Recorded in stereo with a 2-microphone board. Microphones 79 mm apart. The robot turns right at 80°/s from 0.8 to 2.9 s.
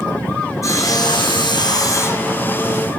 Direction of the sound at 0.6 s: 40° left.